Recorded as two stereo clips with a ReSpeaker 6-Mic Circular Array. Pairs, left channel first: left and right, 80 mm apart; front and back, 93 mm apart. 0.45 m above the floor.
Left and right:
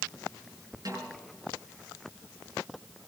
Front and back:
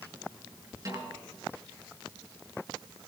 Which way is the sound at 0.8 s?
130° right.